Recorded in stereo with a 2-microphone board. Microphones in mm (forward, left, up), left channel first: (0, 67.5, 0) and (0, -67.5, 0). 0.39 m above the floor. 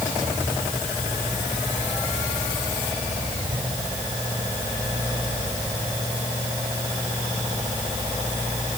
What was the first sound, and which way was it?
Only background noise.